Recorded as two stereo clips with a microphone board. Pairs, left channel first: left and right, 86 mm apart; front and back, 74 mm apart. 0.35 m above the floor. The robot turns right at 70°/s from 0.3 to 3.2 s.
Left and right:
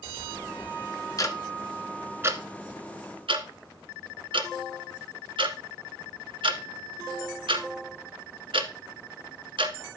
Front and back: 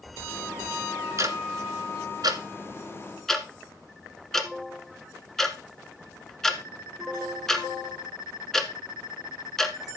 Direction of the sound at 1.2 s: 135° left.